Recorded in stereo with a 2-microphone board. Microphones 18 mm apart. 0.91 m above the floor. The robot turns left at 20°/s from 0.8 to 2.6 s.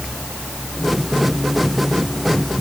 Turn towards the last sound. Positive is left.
No sound to turn to.